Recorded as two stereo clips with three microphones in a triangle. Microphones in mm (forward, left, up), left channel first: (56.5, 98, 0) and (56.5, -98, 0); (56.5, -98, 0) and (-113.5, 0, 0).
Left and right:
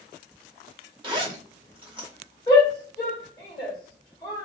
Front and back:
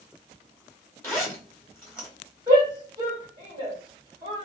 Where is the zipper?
85° right, 1.5 m.